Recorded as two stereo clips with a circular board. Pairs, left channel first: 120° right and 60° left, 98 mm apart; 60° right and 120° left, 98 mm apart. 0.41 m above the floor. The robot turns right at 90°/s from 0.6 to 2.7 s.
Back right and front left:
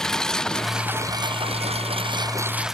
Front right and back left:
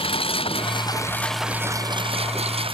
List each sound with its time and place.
0.0 s a lawn mower: 35° right; by 2.7 s 145° left